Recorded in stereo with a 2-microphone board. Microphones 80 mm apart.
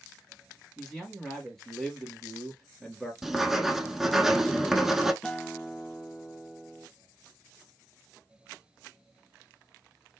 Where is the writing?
5° right (ahead or behind), 0.8 m.